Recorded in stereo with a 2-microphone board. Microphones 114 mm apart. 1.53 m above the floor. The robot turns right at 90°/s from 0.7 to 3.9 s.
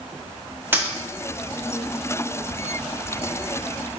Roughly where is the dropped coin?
Centre.